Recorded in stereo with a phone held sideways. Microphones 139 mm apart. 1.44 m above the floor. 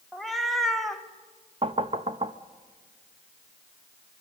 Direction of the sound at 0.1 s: Centre (ahead or behind).